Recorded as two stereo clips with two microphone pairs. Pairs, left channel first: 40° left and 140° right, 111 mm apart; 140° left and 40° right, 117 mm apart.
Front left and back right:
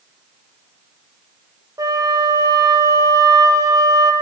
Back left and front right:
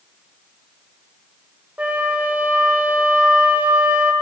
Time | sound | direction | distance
1.8 | a flute | 110° right | 1.6 m